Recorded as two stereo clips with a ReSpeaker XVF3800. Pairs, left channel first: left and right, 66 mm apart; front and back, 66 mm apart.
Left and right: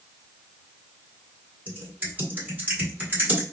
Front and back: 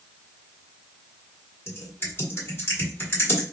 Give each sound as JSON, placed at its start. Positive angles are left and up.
{"t": 1.7, "sound": "typing on a keyboard", "azimuth_deg": -35, "distance_m": 1.8}